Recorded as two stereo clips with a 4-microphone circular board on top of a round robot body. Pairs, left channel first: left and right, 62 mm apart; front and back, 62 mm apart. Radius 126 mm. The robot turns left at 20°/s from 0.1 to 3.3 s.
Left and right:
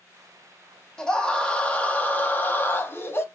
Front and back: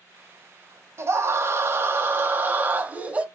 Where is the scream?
165° left, 1.4 m; by 3.2 s 120° left, 1.4 m.